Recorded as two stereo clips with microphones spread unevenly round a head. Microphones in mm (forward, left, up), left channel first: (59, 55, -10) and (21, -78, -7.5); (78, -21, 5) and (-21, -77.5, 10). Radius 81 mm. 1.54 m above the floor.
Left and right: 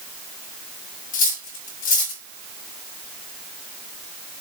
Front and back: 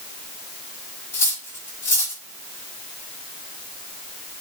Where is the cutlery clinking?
105° left, 1.5 m.